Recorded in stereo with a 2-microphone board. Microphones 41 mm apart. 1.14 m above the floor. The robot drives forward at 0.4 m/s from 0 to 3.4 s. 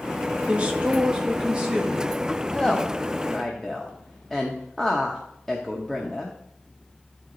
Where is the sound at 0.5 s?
30° right (ahead or behind), 1.4 m; by 2.2 s 20° right (ahead or behind), 2 m.